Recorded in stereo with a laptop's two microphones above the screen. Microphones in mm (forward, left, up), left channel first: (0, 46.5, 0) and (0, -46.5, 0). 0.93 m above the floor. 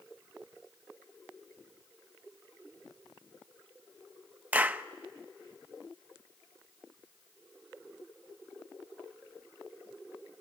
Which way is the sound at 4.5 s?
20° right (ahead or behind).